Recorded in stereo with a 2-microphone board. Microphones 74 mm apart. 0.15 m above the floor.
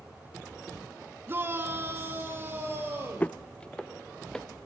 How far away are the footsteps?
About 0.5 m.